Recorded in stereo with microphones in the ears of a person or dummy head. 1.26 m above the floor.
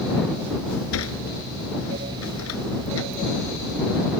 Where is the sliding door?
80° left.